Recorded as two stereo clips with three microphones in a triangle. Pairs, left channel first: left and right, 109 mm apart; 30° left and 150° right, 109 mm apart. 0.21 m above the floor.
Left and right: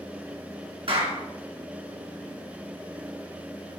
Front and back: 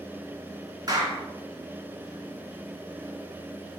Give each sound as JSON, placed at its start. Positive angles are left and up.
{"t": 0.9, "sound": "a clap", "azimuth_deg": -105, "distance_m": 2.0}